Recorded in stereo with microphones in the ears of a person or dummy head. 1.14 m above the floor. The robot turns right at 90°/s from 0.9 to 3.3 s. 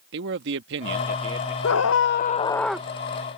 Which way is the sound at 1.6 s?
85° left.